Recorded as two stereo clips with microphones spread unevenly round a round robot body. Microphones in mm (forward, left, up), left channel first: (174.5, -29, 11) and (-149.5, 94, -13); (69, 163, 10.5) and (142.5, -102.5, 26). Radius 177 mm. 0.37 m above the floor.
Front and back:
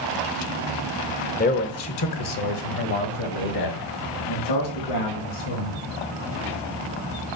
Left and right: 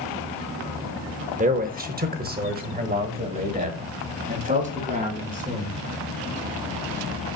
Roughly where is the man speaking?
Ahead right.